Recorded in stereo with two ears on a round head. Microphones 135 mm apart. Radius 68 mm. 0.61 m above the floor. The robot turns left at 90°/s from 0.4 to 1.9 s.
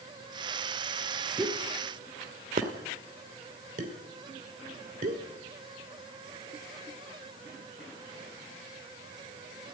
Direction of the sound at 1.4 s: 15° right (ahead or behind).